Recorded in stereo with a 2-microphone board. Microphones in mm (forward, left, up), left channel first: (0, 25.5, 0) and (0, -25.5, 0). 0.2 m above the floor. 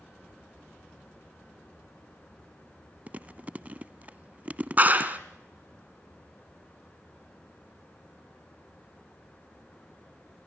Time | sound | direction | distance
3.1 | chewing | 30° right (ahead or behind) | 0.5 m
4.8 | a clap | 35° right (ahead or behind) | 1.8 m